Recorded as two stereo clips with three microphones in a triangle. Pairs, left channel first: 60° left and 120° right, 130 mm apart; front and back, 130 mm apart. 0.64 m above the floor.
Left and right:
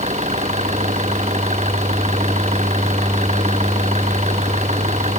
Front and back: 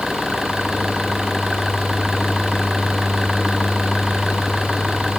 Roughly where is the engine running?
Right.